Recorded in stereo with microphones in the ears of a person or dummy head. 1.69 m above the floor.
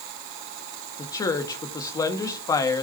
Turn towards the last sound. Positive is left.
turn(degrees=20)  # may be behind; listen again after turning